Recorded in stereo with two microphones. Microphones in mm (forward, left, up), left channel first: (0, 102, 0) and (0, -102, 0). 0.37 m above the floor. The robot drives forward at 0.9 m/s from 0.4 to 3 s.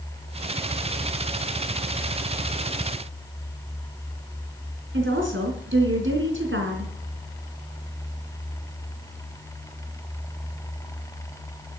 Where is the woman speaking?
70° right (ahead or behind), 3.5 m.